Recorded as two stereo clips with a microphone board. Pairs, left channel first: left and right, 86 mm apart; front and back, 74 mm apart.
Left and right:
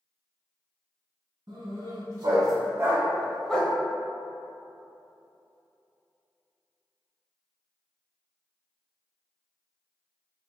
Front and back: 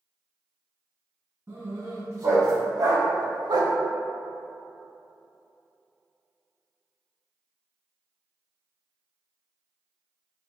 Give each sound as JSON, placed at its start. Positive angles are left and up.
{"t": 1.5, "sound": "a dog barking", "azimuth_deg": -125, "distance_m": 1.4}